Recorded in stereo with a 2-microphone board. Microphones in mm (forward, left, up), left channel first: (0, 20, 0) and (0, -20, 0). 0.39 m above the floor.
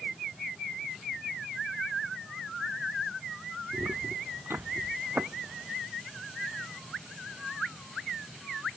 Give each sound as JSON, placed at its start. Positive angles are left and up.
{"t": 3.7, "sound": "footsteps", "side_deg": -80}